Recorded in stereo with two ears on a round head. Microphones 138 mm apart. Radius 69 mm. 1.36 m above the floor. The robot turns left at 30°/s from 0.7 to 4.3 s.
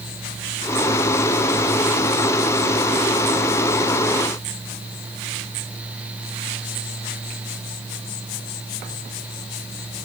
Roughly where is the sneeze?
I don't hear a sneeze.